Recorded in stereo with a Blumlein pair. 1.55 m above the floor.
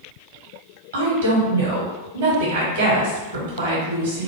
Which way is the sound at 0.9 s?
60° right.